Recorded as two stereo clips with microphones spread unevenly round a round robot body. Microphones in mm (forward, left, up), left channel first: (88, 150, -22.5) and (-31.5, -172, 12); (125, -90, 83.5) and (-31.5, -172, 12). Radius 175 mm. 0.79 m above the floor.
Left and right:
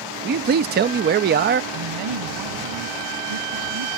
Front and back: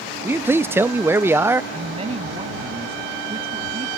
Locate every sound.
0.2 s a man speaking: 165° right
1.7 s a woman speaking: 95° right